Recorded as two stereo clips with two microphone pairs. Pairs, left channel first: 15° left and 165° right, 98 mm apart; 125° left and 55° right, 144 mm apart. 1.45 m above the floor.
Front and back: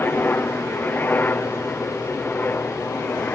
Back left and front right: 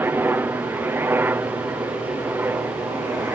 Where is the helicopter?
10° right.